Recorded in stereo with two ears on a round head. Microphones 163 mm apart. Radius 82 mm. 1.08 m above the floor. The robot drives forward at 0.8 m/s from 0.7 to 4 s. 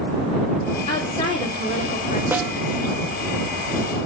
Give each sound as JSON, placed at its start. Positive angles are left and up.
{"t": 0.9, "sound": "a woman speaking", "side_deg": 30, "distance_m": 3.5}
{"t": 2.3, "sound": "a snare drum", "side_deg": -10, "distance_m": 0.9}